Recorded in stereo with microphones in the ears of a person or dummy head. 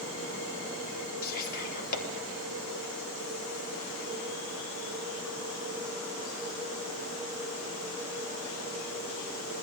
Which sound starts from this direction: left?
Whispering, at 1.2 s.